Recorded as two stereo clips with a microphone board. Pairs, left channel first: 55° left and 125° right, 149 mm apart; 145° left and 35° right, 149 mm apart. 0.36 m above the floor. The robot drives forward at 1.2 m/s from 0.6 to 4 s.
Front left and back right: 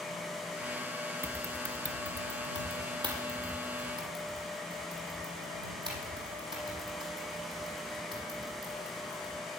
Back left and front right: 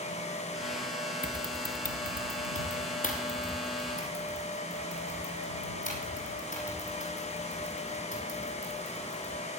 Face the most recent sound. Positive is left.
turn(degrees=175)